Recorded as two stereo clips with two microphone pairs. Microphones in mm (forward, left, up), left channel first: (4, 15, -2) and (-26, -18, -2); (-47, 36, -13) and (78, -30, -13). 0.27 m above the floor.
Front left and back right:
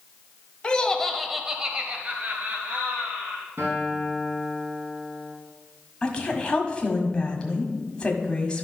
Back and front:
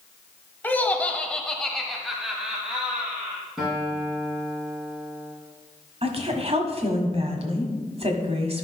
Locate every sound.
0.6 s laughter: 85° left, 1.0 m; by 3.4 s 110° right, 1.7 m
3.6 s a guitar: 115° right, 3 m
6.0 s a woman speaking: 10° right, 1.5 m